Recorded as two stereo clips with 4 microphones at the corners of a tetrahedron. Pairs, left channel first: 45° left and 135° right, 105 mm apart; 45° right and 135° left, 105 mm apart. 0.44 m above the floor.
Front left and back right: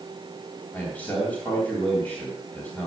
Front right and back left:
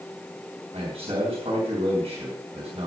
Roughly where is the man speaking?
Behind left.